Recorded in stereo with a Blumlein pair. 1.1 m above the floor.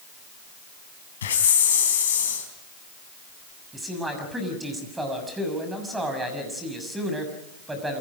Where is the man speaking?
10° right, 6.5 m.